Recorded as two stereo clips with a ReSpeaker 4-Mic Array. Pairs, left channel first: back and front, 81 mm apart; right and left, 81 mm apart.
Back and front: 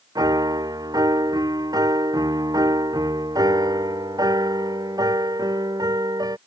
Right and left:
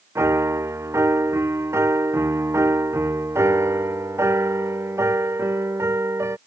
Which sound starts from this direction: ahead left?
A piano, at 0.1 s.